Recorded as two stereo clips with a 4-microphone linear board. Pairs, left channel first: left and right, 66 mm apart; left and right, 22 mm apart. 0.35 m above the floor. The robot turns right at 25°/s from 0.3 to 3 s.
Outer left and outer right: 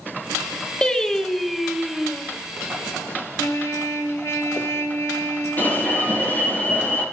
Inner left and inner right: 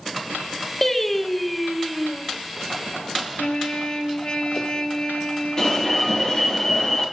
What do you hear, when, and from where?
0.8 s singing: 160° left, 1.7 m; by 2.2 s 165° right, 1.7 m
3.4 s a trumpet: 50° left (ahead or behind), 2 m
5.6 s an alarm: 25° left (ahead or behind), 8 m